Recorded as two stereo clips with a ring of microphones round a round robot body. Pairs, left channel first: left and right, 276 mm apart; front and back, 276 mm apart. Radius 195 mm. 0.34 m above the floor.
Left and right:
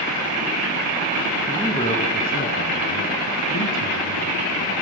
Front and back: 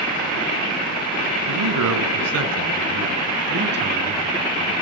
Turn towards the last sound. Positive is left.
turn(degrees=120)